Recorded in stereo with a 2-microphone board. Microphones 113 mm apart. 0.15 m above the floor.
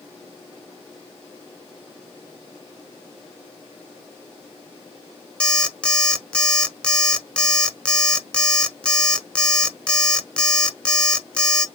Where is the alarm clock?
10° left (ahead or behind), 0.6 m.